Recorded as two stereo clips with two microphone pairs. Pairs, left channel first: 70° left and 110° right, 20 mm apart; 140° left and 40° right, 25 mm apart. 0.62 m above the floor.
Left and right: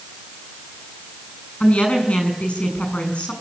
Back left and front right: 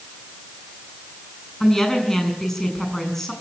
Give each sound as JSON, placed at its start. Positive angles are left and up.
{"t": 1.6, "sound": "a woman speaking", "azimuth_deg": 65, "distance_m": 7.5}